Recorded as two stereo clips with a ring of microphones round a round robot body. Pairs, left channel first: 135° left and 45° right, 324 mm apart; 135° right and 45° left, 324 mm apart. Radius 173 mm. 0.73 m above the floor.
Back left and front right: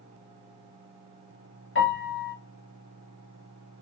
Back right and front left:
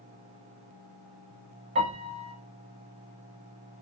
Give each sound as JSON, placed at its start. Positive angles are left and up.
{"t": 1.8, "sound": "a piano", "azimuth_deg": 105, "distance_m": 1.1}